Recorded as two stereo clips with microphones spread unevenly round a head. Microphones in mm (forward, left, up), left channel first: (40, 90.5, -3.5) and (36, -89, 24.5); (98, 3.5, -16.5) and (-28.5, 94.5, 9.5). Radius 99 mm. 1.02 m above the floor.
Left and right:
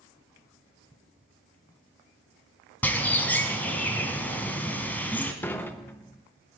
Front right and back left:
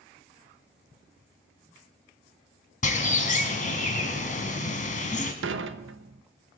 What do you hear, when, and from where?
2.8 s a bird: 5° left, 1.9 m
5.4 s dishes clattering: 170° left, 0.5 m